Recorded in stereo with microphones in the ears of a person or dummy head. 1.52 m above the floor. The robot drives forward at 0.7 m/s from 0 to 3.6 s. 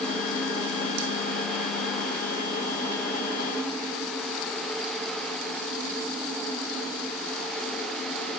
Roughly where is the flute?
I don't hear a flute.